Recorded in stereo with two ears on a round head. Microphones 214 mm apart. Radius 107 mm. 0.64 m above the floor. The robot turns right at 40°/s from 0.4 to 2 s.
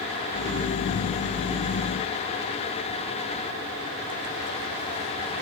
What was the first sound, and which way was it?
Only background noise.